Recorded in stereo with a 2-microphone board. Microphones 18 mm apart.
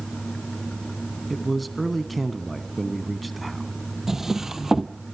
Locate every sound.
1.3 s a man speaking: centre (ahead or behind), 1.3 m
4.1 s a drawer: 25° right (ahead or behind), 1.0 m